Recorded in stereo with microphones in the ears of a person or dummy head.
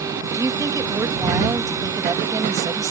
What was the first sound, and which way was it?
A woman speaking, 15° right (ahead or behind).